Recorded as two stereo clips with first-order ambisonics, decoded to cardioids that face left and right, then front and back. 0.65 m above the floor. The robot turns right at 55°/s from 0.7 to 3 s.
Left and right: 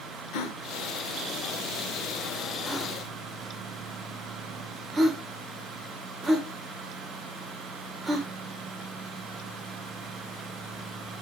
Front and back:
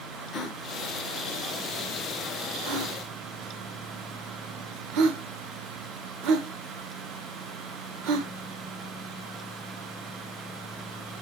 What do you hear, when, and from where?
0.3 s a gasp: 65° left, 1.1 m; by 8.3 s 165° right, 1.1 m